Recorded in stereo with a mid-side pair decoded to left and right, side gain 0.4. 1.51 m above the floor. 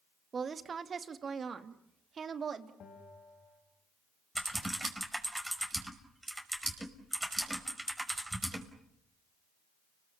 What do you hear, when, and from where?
0.3 s a woman speaking: 45° right, 2.0 m; by 2.7 s 55° right, 3 m
2.8 s a bell: 55° left, 6 m
4.3 s typing on a keyboard: 15° right, 5.5 m